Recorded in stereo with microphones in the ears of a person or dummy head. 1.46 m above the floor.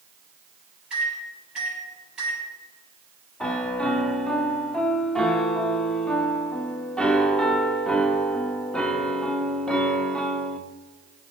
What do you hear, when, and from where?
0.9 s a microwave: centre (ahead or behind), 4 m
3.4 s a piano: centre (ahead or behind), 0.5 m